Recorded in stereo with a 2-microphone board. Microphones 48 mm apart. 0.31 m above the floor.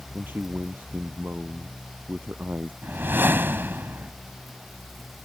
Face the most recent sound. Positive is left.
turn(degrees=-50)  # may be behind; listen again after turning